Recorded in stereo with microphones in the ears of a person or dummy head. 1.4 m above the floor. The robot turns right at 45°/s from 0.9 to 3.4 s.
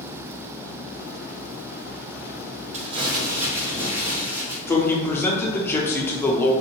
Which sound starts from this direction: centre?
A man speaking, at 4.7 s.